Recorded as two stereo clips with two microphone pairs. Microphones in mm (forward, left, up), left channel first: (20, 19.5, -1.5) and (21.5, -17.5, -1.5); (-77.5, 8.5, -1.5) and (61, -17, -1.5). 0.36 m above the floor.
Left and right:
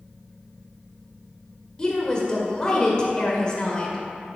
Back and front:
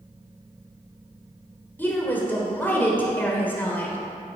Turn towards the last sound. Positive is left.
turn(degrees=115)